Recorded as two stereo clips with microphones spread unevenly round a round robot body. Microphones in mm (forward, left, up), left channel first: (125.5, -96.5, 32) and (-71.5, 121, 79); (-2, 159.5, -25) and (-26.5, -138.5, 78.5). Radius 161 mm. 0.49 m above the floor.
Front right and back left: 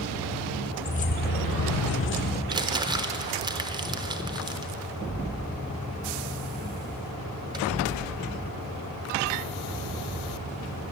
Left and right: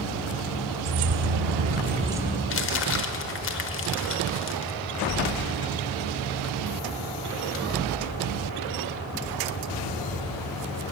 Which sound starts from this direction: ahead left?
Crumpling, at 2.5 s.